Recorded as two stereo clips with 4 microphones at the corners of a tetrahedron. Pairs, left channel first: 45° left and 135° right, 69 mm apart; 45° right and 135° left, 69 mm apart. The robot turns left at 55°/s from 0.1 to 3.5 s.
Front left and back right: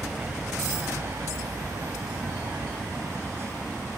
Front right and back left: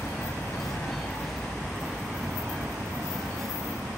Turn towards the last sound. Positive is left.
turn(degrees=130)